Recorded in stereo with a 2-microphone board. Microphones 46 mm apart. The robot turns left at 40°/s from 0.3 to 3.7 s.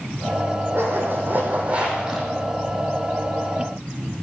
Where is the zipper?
110° right, 2.5 m; by 2.3 s 175° right, 2.5 m.